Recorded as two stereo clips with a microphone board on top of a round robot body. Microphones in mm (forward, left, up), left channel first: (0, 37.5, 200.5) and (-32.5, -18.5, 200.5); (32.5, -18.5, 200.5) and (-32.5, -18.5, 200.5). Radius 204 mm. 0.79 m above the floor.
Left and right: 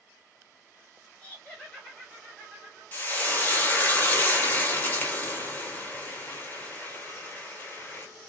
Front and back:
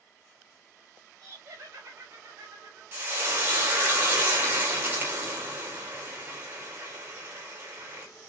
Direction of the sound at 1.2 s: 135° left.